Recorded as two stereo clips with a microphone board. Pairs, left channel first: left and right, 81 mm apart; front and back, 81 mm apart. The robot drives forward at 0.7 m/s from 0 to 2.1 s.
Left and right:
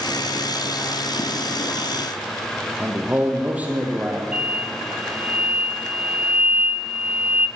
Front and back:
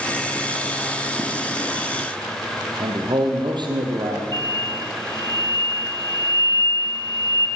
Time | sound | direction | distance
2.8 | a man speaking | 160° right | 3.5 m
4.3 | an explosion | 165° right | 2.0 m